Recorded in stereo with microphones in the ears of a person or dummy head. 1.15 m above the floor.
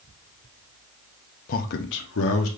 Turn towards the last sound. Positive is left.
turn(degrees=75)  # may be behind; listen again after turning